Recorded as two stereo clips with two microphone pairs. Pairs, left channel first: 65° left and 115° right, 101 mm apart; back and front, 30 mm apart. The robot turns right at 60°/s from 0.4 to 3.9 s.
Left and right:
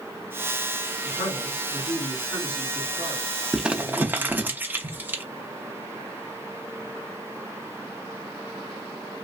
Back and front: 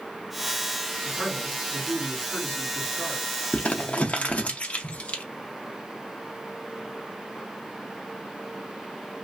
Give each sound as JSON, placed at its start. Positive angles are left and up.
{"t": 1.0, "sound": "a man speaking", "azimuth_deg": 60, "distance_m": 2.5}
{"t": 3.5, "sound": "crumpling", "azimuth_deg": 155, "distance_m": 0.5}